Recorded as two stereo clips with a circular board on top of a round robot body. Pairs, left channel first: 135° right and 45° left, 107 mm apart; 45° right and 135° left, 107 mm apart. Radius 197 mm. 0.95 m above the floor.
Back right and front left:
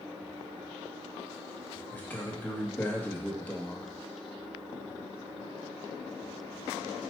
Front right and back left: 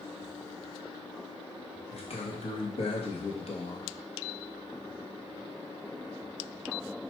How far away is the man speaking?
About 1.3 m.